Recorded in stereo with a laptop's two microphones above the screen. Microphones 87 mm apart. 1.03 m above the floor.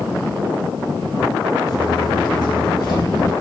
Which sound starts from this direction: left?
Footsteps, at 1.7 s.